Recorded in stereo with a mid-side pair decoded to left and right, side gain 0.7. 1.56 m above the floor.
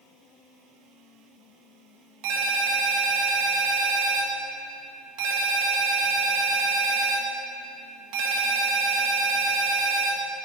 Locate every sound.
2.2 s a ringtone: 65° right, 1.6 m